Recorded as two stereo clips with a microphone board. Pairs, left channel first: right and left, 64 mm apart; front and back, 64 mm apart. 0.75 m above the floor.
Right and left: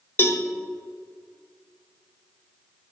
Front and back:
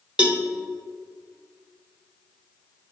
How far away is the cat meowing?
No cat meowing in this recording.